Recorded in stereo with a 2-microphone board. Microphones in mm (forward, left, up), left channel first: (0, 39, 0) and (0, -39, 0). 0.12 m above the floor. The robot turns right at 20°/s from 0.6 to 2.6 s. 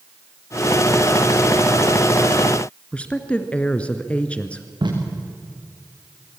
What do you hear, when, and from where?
2.9 s a woman speaking: 15° left (ahead or behind), 1.5 m
4.8 s tape being pulled: 85° right, 6.5 m